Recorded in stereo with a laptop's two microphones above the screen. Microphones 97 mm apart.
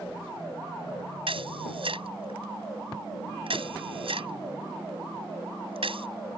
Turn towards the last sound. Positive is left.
turn(degrees=-70)  # may be behind; listen again after turning